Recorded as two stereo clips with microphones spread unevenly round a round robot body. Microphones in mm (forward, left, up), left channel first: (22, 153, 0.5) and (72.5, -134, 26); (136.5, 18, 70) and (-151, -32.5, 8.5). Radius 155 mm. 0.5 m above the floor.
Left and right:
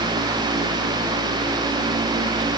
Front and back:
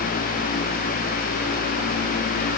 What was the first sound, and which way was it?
Only background noise.